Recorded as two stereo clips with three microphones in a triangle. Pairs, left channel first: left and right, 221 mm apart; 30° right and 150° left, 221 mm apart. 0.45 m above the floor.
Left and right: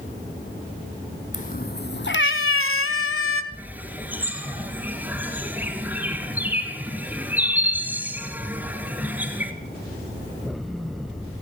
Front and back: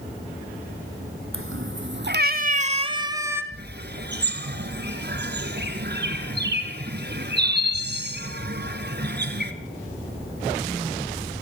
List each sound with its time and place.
1.3 s a cat meowing: 140° left, 1.2 m; by 3.4 s 70° left, 1.2 m
3.5 s a bird: 170° right, 1.6 m